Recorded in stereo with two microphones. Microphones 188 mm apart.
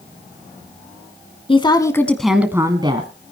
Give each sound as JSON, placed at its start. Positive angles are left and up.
{"t": 1.5, "sound": "a woman speaking", "side_deg": 30, "distance_m": 1.3}